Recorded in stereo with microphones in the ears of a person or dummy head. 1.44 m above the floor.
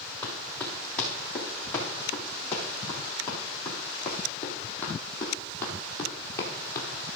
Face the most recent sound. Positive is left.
turn(degrees=20)  # may be behind; listen again after turning